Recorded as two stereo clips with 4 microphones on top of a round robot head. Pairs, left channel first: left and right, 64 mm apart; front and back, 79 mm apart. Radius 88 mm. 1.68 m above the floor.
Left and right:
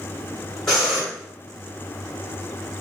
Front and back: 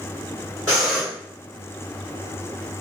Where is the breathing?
165° left, 1.3 m.